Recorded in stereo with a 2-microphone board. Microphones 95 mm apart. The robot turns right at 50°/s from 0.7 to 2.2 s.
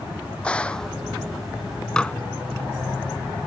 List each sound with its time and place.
0.4 s a gunshot: 10° left (ahead or behind); by 1.0 s centre (ahead or behind)
2.0 s dishes clattering: 10° left (ahead or behind); by 2.1 s 15° left (ahead or behind)